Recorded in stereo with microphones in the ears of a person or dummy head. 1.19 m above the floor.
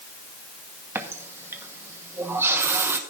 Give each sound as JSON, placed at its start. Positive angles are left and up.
{"t": 0.9, "sound": "a running tap", "side_deg": -10, "distance_m": 0.9}